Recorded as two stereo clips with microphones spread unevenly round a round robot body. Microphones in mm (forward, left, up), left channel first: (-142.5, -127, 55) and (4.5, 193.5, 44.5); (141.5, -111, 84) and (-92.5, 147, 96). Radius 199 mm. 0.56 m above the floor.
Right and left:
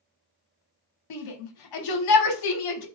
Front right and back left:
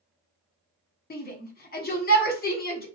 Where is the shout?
110° right, 1.2 m.